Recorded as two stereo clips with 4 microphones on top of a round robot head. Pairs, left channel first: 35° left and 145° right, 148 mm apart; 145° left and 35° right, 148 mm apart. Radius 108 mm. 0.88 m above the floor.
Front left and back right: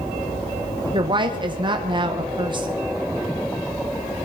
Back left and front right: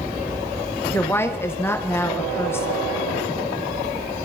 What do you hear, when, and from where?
0.9 s a woman speaking: 155° right, 0.9 m